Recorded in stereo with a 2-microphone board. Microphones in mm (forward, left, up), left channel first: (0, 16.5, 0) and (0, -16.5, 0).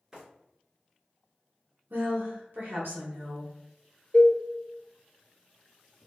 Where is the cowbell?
40° left (ahead or behind), 0.7 m.